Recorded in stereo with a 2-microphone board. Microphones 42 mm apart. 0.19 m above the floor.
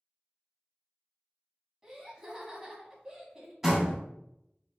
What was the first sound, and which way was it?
Laughter, 10° right (ahead or behind).